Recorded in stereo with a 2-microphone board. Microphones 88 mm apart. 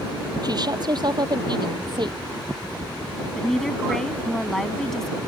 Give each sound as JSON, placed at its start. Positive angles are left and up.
{"t": 0.4, "sound": "a woman speaking", "side_deg": -50}
{"t": 3.4, "sound": "a woman speaking", "side_deg": 5}